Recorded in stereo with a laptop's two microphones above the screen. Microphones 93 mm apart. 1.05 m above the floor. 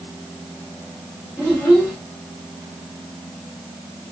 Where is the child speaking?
10° left (ahead or behind), 1.9 m.